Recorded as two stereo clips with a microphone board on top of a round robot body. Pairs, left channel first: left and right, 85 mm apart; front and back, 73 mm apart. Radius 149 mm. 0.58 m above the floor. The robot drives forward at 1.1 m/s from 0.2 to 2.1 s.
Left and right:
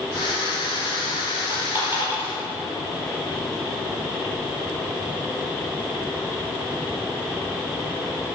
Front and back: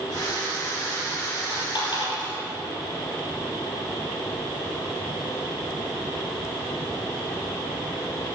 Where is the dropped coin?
25° right, 6 m; by 2.4 s 30° right, 5 m.